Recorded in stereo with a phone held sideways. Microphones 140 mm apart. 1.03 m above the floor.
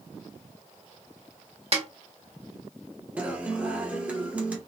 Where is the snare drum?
45° right (ahead or behind), 1.4 m.